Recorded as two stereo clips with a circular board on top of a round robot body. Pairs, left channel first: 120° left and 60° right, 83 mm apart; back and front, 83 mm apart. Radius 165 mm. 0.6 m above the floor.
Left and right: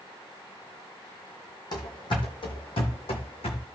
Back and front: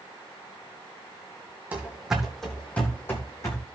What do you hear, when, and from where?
1.7 s running footsteps: 75° left, 1.9 m; by 3.6 s 125° left, 2.5 m